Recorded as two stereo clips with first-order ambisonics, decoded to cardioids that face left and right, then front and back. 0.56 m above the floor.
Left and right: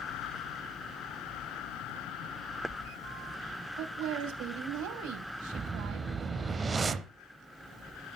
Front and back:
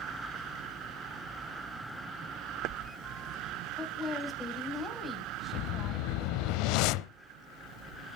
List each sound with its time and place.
3.8 s a woman speaking: 90° right, 3 m
5.5 s a whoosh: 15° right, 0.7 m